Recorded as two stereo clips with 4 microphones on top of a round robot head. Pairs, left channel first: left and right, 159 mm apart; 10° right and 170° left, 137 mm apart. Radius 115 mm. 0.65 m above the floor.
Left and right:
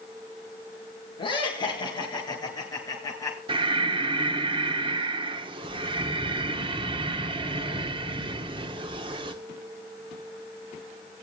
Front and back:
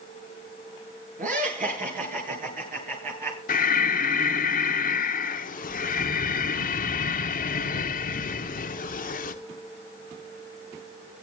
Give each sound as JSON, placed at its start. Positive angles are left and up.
{"t": 1.2, "sound": "laughter", "azimuth_deg": 150, "distance_m": 10.0}
{"t": 3.5, "sound": "breathing", "azimuth_deg": -30, "distance_m": 1.0}